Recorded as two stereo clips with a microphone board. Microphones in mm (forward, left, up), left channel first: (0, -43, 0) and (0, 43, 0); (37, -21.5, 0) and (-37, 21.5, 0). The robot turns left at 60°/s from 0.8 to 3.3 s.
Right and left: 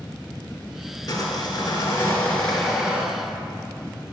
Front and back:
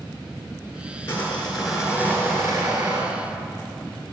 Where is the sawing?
85° right, 2.5 m; by 3.1 s 155° left, 2.5 m.